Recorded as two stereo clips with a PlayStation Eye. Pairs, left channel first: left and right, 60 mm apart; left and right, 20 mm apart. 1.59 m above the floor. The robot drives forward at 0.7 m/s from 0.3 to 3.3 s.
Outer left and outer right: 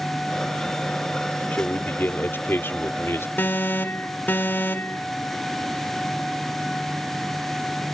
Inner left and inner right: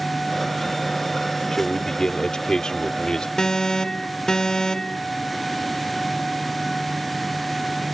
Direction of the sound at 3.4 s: 35° left (ahead or behind).